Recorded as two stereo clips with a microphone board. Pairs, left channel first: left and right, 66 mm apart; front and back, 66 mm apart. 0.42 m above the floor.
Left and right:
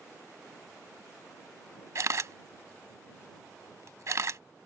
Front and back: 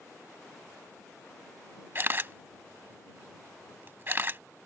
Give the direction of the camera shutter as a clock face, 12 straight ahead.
4 o'clock.